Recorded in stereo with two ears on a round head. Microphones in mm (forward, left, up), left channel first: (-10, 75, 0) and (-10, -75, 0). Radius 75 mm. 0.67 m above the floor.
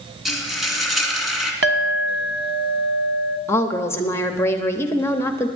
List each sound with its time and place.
0.2 s frying: centre (ahead or behind), 2 m
1.6 s a clink: 65° right (ahead or behind), 1.1 m
3.5 s a woman speaking: 15° left (ahead or behind), 0.9 m